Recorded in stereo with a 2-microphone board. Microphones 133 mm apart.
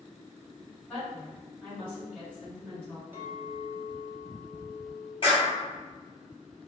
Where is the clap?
45° left (ahead or behind), 1.6 m.